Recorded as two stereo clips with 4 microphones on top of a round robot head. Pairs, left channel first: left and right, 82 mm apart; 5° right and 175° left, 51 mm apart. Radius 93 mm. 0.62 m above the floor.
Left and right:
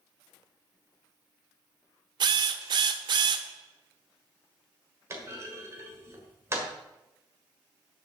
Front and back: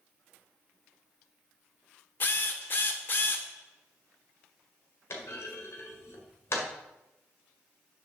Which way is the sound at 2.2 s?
55° right.